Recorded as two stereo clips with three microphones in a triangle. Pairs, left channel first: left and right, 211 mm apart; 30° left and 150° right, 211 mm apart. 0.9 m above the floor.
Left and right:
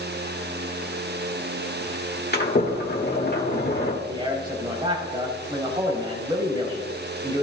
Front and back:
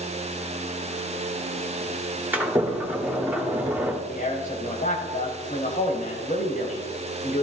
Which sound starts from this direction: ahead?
A man speaking, at 4.1 s.